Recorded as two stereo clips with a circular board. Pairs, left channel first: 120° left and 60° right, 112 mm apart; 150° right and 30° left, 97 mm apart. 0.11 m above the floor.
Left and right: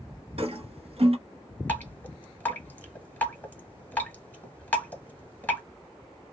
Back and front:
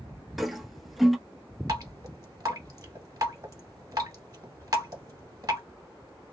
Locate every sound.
0.4 s a toilet flushing: 60° right, 0.6 m
1.7 s dripping: 55° left, 1.1 m